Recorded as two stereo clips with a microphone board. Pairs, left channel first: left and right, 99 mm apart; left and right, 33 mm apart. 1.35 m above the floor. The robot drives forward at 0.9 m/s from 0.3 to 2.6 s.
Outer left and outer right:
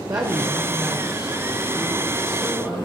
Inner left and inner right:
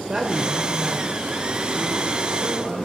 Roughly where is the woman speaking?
Right.